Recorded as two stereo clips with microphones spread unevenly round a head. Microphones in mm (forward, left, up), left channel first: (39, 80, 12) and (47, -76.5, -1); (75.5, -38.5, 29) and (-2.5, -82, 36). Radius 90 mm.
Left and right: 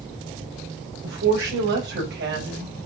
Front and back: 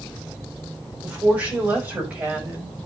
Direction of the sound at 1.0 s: 75° right.